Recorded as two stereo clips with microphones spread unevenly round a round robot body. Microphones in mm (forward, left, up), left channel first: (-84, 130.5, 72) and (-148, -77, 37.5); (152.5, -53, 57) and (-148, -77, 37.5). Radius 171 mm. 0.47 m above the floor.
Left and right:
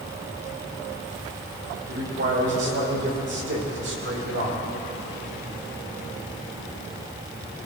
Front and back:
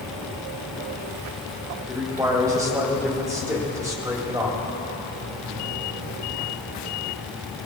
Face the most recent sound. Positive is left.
turn(degrees=-100)